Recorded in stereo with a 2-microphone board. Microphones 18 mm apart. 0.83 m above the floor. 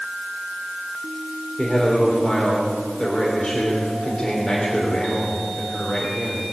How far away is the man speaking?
About 3 m.